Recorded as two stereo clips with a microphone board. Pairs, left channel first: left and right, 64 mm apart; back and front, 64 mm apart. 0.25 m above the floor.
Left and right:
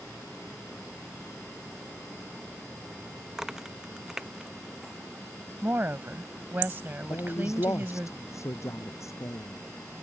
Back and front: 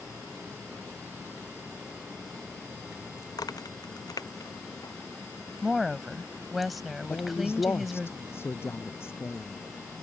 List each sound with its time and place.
3.3 s a crack: 170° right
5.6 s a woman speaking: 90° right
7.1 s a man speaking: 130° left